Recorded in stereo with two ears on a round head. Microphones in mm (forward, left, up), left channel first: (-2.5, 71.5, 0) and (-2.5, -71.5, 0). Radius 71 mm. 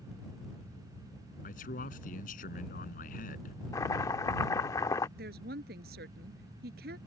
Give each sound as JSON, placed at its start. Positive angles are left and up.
{"t": 1.4, "sound": "a man speaking", "side_deg": 55}
{"t": 3.7, "sound": "chopping", "side_deg": 20}
{"t": 5.2, "sound": "a woman speaking", "side_deg": -70}